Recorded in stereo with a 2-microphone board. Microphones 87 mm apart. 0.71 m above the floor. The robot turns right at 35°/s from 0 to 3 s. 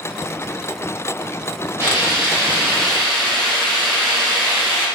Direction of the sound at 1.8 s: 40° right.